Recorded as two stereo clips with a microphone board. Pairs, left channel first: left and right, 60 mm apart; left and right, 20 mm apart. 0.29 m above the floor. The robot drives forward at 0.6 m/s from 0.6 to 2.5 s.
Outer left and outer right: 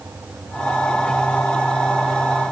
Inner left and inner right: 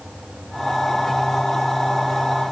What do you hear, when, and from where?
Only background noise.